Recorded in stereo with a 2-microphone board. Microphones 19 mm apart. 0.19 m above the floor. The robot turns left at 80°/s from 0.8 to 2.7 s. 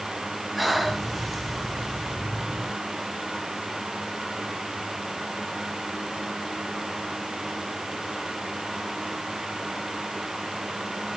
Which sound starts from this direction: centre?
Breathing, at 0.6 s.